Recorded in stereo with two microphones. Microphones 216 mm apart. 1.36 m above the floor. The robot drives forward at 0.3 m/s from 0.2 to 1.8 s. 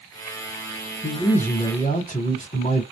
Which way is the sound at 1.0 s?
40° left (ahead or behind).